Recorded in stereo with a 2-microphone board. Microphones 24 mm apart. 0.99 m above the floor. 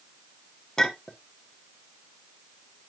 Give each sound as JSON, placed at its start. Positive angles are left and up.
{"t": 0.8, "sound": "a clink", "side_deg": 20, "distance_m": 1.4}